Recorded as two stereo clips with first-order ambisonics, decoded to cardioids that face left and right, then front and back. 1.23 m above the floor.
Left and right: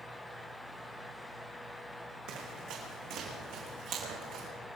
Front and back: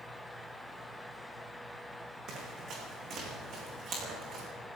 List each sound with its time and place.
2.3 s running footsteps: 125° right, 4.5 m